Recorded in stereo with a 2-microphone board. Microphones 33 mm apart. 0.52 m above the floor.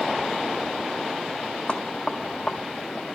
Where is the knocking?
35° left (ahead or behind), 1.9 m.